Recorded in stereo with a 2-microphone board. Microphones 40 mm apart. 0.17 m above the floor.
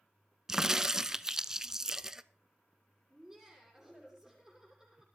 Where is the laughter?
10° right (ahead or behind), 7.5 m.